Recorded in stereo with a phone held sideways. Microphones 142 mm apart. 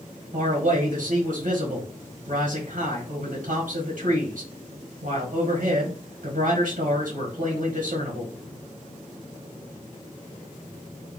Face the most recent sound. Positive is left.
turn(degrees=-75)  # may be behind; listen again after turning